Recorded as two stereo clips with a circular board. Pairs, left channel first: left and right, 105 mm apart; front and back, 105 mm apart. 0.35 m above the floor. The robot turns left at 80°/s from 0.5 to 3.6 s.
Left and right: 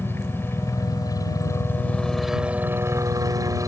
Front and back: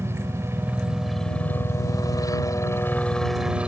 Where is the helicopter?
140° left; by 3.7 s 110° right.